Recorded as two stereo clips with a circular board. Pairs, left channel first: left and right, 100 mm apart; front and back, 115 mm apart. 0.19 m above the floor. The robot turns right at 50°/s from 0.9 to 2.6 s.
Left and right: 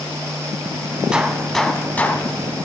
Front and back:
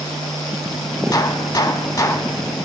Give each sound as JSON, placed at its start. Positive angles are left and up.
{"t": 1.1, "sound": "a gunshot", "azimuth_deg": -15, "distance_m": 0.8}